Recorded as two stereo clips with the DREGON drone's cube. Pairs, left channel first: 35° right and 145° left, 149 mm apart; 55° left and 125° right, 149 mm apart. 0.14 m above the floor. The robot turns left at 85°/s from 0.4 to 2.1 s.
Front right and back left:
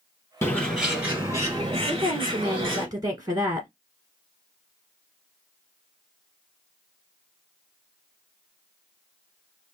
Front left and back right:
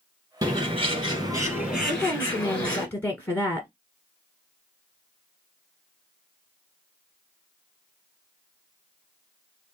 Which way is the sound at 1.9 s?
135° left.